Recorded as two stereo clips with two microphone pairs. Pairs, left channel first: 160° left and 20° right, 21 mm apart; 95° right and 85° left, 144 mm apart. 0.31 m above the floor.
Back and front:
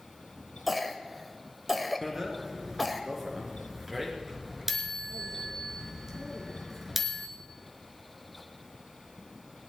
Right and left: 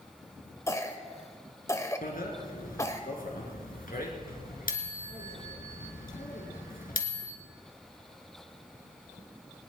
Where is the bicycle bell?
95° right, 3 m.